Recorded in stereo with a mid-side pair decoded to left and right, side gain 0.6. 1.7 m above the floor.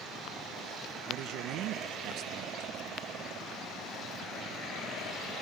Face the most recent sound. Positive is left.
turn(degrees=-65)